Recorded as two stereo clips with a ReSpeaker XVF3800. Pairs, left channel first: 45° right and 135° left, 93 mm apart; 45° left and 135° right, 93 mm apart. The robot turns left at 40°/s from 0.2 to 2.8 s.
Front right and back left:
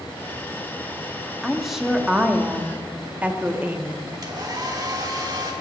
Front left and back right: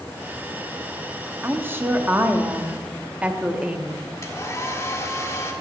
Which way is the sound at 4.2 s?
100° left.